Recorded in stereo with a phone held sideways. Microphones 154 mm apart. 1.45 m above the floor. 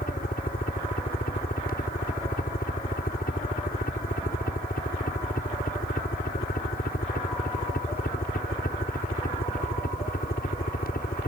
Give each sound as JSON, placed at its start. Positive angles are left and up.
{"t": 0.0, "sound": "a helicopter", "side_deg": 70}